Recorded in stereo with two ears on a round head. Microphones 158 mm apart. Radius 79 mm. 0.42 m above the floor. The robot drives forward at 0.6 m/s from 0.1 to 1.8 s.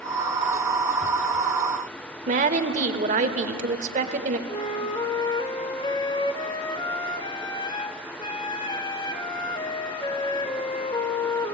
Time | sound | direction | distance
2.3 | a woman speaking | 45° right (ahead or behind) | 1.3 m
4.5 | a flute | 25° left (ahead or behind) | 1.0 m